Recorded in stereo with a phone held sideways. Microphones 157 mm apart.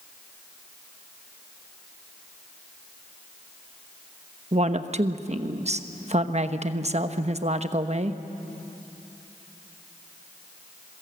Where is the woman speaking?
45° right (ahead or behind), 1.1 m.